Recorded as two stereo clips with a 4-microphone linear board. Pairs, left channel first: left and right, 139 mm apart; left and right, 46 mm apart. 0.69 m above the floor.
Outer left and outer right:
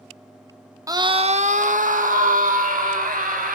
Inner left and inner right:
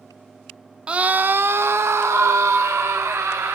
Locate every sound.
0.9 s a scream: 25° right (ahead or behind), 0.9 m; by 3.5 s 80° right, 3 m